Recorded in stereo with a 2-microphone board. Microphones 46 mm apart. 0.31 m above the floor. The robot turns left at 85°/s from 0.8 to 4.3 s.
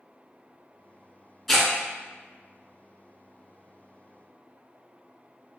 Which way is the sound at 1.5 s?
Centre (ahead or behind).